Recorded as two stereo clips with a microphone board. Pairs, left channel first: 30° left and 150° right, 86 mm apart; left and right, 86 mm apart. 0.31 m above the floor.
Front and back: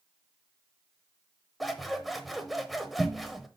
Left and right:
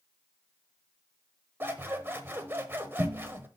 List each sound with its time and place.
1.6 s scissors: 60° right, 0.9 m